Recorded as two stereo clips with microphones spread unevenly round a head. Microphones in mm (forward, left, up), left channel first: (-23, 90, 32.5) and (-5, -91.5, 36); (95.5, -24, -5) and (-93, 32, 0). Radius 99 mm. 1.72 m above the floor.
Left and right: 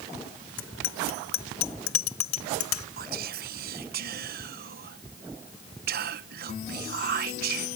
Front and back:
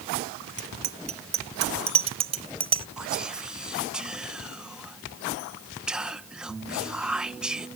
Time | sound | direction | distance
0.6 | a bicycle bell | 110° left | ?
3.0 | whispering | 110° right | ?